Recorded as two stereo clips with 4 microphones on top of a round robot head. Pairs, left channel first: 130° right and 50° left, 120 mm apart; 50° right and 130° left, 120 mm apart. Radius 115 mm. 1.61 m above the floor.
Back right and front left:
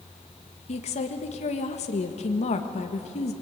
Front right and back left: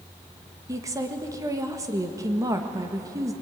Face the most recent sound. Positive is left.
turn(degrees=-165)